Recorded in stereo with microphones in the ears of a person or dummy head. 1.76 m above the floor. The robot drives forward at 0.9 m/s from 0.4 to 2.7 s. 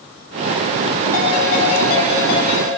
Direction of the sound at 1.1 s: 55° left (ahead or behind).